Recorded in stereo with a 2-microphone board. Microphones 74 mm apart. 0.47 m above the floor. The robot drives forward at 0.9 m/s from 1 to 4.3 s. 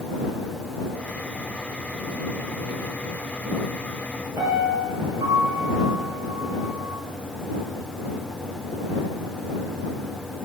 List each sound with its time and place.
4.4 s a piano: 45° right (ahead or behind), 8.5 m